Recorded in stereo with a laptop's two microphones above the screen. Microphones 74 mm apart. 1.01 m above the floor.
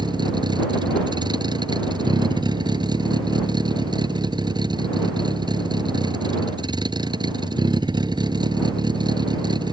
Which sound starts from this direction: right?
A vehicle, at 0.0 s.